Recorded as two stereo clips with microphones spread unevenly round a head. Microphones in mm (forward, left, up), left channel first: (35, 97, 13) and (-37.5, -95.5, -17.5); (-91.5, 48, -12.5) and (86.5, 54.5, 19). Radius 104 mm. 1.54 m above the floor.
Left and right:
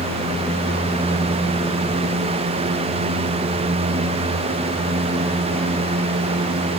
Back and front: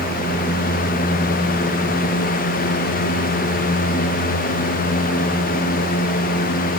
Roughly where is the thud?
No thud in this recording.